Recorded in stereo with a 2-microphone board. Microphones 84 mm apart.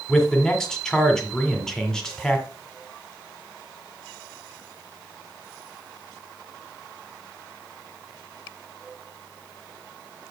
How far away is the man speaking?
About 1.6 m.